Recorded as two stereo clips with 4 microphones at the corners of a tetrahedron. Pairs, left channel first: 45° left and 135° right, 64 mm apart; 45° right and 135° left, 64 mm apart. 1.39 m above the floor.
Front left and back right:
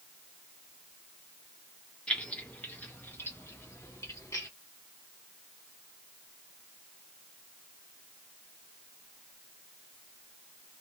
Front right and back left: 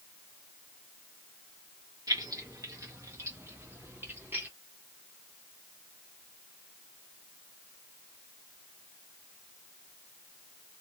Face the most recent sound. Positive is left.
turn(degrees=75)